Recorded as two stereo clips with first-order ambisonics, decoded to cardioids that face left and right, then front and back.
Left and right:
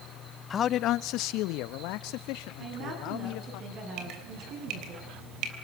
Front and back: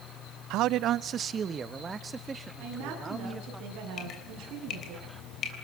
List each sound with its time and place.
0.5 s a man speaking: 155° left, 0.5 m; by 3.6 s 100° left, 2.5 m
2.6 s a woman speaking: 135° right, 9 m
4.0 s dripping: 55° right, 3.5 m